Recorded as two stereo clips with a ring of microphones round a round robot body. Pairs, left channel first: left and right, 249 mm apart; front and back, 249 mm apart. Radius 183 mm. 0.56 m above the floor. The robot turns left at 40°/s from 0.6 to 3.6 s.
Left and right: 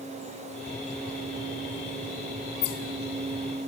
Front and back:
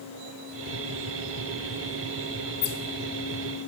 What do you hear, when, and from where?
Only background noise.